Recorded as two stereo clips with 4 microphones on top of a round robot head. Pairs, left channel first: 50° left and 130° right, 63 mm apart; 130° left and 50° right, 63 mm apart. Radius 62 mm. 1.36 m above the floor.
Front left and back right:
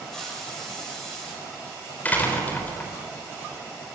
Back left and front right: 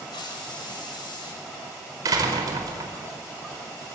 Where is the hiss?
135° left, 6 m.